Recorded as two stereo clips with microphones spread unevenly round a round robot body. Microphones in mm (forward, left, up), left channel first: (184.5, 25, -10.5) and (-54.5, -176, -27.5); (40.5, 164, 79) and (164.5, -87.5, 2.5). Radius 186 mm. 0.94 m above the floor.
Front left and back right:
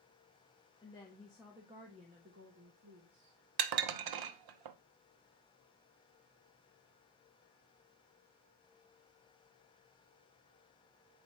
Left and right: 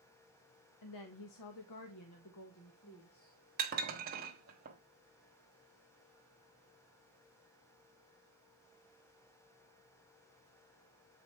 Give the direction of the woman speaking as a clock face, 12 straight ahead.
8 o'clock.